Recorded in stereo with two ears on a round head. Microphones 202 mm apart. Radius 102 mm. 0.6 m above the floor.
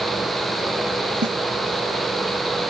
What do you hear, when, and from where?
1.2 s a snare drum: 50° right (ahead or behind)